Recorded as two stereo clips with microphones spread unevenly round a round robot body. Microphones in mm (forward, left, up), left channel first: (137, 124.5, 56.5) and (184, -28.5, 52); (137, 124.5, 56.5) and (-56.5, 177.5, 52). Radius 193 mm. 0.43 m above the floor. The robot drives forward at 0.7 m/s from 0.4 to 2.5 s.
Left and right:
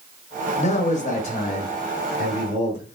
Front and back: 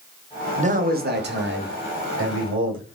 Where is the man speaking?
125° left, 0.9 m; by 3.0 s 165° left, 1.9 m.